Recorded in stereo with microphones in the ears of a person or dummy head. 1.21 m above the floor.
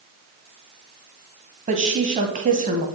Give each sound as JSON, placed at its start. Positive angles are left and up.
{"t": 1.7, "sound": "a woman speaking", "side_deg": -35, "distance_m": 1.1}